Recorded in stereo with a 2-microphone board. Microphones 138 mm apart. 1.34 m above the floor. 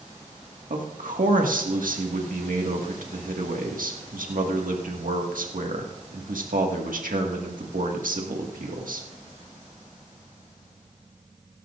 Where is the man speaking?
85° right, 1.8 m.